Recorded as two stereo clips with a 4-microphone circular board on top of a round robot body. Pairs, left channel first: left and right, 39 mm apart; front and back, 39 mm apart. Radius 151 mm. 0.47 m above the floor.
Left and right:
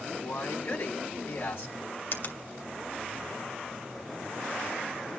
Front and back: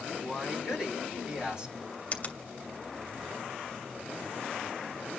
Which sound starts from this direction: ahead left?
A finger snap, at 2.1 s.